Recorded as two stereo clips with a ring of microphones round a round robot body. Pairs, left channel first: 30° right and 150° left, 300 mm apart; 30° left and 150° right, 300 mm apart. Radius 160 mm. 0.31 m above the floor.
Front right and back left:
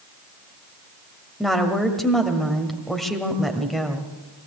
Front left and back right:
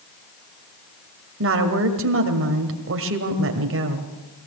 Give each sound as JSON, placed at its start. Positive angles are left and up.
{"t": 1.4, "sound": "a woman speaking", "azimuth_deg": -120, "distance_m": 1.8}